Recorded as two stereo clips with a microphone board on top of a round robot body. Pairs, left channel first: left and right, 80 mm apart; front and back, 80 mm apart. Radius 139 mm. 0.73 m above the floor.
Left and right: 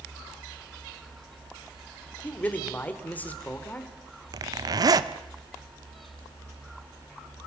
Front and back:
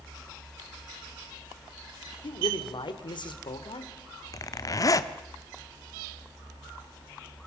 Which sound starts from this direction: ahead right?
A zipper, at 4.3 s.